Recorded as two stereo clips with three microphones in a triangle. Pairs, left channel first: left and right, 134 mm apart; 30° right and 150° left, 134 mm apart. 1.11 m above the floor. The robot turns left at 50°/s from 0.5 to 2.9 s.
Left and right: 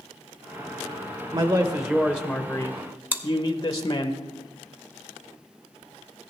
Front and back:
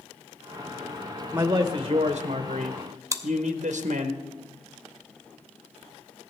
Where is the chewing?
155° right, 0.8 m.